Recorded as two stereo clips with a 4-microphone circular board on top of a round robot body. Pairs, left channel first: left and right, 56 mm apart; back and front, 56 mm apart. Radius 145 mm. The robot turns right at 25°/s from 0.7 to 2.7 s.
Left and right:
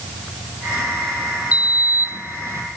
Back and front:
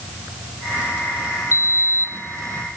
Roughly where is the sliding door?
Behind right.